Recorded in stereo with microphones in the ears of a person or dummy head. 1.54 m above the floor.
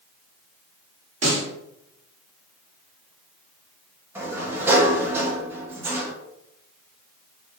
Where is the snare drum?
50° right (ahead or behind), 1.1 m.